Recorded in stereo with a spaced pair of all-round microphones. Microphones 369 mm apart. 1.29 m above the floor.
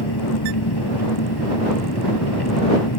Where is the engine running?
75° left (ahead or behind).